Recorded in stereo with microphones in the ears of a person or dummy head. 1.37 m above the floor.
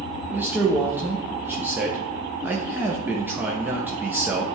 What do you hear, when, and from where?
0.3 s a man speaking: 10° right (ahead or behind), 0.7 m